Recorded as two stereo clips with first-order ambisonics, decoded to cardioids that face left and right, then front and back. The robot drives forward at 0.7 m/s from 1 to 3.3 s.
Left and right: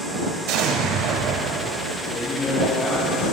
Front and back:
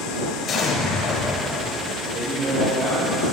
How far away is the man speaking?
About 2 m.